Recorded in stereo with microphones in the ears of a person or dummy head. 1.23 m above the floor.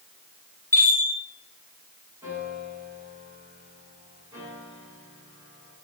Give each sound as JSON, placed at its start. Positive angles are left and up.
{"t": 0.7, "sound": "a chime", "side_deg": 15, "distance_m": 3.0}
{"t": 2.2, "sound": "a piano", "side_deg": -15, "distance_m": 8.5}